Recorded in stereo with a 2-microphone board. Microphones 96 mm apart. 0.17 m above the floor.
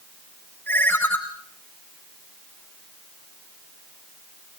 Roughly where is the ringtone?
Centre.